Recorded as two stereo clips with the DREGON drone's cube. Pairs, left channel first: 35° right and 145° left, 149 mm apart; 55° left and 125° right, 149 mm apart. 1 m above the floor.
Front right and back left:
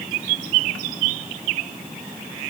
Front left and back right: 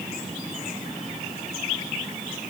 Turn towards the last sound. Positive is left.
No sound to turn to.